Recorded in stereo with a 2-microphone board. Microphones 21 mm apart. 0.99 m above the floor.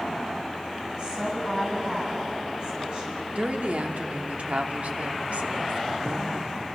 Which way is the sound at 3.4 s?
80° right.